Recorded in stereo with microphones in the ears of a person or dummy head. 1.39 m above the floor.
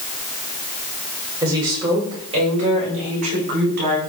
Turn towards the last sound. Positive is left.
turn(degrees=-50)  # may be behind; listen again after turning